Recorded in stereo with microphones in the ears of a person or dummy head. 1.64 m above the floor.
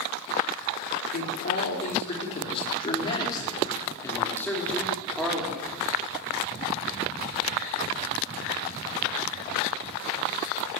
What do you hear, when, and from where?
1.1 s a man speaking: 50° left (ahead or behind), 5 m; by 5.7 s 5° right (ahead or behind), 5.5 m